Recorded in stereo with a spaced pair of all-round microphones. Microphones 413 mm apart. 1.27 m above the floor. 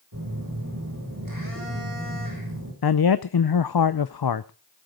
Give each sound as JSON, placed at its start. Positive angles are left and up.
{"t": 0.1, "sound": "a phone buzzing", "side_deg": -55, "distance_m": 6.5}
{"t": 2.8, "sound": "a man speaking", "side_deg": 70, "distance_m": 0.5}